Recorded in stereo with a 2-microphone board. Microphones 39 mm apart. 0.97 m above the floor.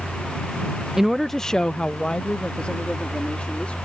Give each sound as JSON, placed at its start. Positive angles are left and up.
{"t": 1.0, "sound": "a woman speaking", "side_deg": -10}